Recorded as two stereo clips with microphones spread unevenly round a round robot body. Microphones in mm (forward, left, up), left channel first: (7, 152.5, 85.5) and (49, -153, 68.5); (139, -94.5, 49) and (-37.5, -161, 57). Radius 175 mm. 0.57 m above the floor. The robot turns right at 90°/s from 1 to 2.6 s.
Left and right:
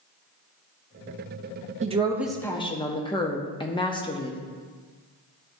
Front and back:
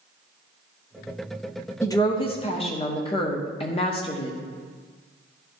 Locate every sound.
1.8 s a woman speaking: 40° right, 0.7 m; by 4.4 s 30° left, 0.7 m